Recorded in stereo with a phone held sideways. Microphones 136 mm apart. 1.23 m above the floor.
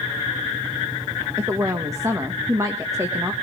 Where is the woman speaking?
25° right (ahead or behind), 1.5 m.